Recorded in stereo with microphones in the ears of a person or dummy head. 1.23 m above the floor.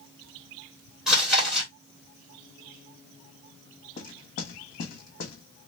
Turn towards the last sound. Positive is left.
turn(degrees=45)  # may be behind; listen again after turning